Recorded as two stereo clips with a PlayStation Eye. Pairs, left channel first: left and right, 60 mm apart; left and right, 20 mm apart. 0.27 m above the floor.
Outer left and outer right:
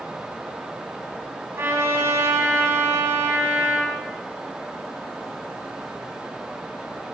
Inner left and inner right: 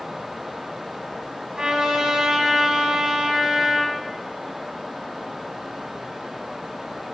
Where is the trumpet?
40° right (ahead or behind), 1.9 m.